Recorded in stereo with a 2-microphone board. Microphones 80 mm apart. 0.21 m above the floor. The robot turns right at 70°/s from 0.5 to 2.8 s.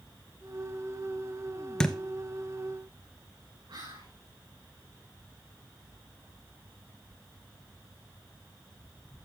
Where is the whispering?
80° right, 6.5 m.